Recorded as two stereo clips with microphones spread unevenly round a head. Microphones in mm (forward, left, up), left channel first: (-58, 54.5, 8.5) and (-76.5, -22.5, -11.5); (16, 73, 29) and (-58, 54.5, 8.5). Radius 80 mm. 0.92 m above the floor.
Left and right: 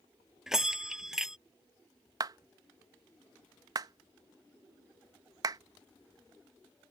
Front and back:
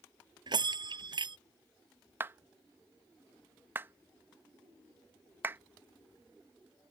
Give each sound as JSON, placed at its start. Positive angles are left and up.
{"t": 0.5, "sound": "a bell", "azimuth_deg": 170}
{"t": 2.2, "sound": "a clap", "azimuth_deg": -110}